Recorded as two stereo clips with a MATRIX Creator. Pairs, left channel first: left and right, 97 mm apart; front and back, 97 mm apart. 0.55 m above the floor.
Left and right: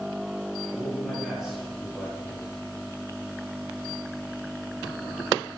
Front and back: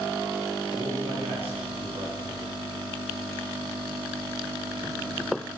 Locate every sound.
0.7 s a man speaking: straight behind, 9 m; by 2.5 s 170° left, 8.5 m